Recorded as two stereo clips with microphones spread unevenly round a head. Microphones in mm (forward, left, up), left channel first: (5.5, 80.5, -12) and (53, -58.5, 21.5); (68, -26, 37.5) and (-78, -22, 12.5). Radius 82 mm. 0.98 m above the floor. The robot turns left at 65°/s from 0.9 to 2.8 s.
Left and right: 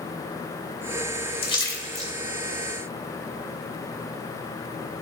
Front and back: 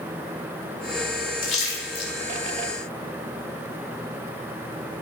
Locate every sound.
1.4 s a splash: 55° left, 2 m; by 2.1 s 10° left, 2 m